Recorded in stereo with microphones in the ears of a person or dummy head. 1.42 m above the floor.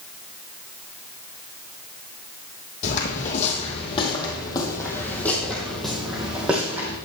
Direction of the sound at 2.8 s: 40° left (ahead or behind).